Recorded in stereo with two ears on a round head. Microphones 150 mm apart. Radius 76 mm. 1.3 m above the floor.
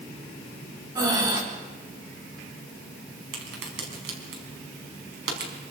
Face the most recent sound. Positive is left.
turn(degrees=-75)  # may be behind; listen again after turning